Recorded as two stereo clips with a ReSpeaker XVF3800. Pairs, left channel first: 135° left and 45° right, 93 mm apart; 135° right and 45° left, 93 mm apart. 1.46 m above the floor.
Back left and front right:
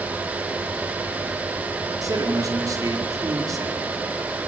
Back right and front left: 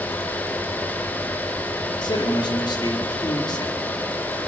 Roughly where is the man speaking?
Right.